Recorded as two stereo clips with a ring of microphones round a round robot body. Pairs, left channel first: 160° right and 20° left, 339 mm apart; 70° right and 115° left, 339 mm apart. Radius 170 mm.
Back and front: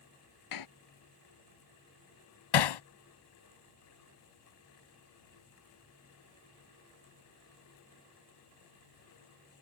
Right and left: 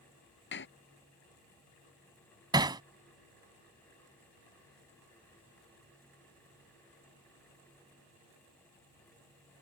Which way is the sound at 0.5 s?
125° right.